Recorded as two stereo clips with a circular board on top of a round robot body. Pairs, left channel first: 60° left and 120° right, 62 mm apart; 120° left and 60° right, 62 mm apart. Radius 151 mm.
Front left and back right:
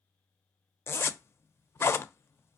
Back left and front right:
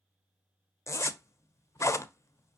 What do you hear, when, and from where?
0.9 s a zipper: 95° left, 0.6 m